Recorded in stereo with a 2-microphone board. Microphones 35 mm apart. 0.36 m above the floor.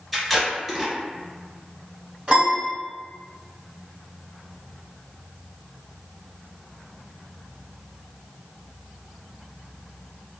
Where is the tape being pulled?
10° right (ahead or behind), 1.4 m.